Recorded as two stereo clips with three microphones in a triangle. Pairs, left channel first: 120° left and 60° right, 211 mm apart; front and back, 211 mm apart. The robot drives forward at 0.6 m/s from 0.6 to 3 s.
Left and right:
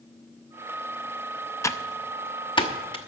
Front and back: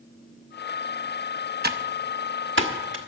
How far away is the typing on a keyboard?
About 0.6 m.